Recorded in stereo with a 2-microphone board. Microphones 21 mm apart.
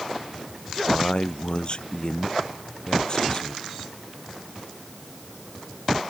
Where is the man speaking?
45° left (ahead or behind); by 3.7 s 35° left (ahead or behind).